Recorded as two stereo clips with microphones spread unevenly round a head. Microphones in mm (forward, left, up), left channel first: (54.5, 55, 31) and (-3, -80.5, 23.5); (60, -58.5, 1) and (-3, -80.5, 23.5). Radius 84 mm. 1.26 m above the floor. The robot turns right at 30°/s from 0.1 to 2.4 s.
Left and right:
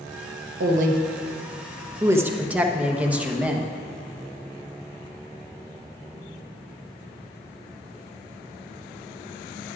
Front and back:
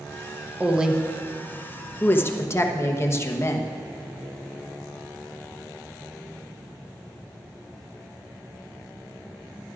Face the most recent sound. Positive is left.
turn(degrees=-30)